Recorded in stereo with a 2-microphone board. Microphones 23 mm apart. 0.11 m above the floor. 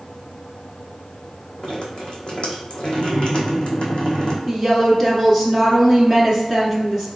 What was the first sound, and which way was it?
Dripping, 50° left (ahead or behind).